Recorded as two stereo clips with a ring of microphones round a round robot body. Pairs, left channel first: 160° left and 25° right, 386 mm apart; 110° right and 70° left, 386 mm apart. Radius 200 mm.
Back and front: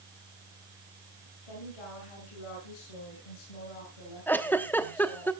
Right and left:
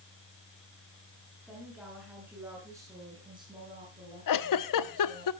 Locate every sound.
1.5 s a woman speaking: 155° left, 7.5 m; by 5.3 s 135° left, 7.5 m
4.3 s a giggle: 120° right, 1.0 m